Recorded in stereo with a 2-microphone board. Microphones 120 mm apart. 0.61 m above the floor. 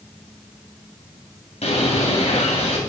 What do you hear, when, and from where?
1.6 s a bird: 65° left (ahead or behind), 2.5 m